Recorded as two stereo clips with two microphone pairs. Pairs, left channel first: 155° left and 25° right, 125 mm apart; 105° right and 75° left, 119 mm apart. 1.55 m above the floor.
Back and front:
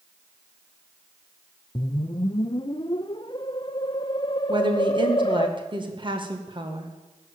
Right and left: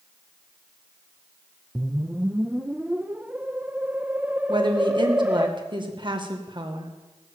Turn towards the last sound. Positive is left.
turn(degrees=30)